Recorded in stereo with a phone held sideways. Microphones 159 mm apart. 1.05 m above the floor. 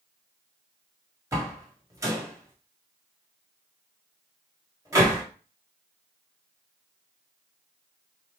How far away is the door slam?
About 1.4 m.